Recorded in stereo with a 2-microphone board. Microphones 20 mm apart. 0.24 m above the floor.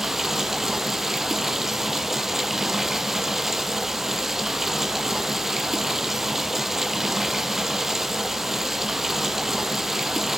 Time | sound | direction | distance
0.0 | running water | 20° right (ahead or behind) | 1.1 m